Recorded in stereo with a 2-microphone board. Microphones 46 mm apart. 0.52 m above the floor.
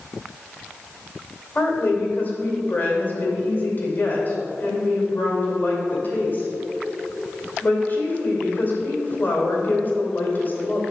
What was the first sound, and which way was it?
A woman speaking, 45° left (ahead or behind).